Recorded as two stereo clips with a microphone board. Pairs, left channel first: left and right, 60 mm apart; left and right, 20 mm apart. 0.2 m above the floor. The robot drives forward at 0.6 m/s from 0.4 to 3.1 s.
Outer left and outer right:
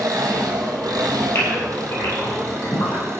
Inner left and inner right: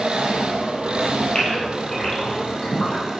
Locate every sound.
0.0 s an engine running: 80° right, 1.6 m; by 3.2 s 50° right (ahead or behind), 2 m
1.4 s a gasp: 45° left (ahead or behind), 4.5 m; by 3.0 s 40° left (ahead or behind), 5.5 m